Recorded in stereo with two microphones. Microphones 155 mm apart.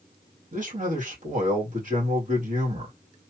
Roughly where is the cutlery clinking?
No cutlery clinking in this recording.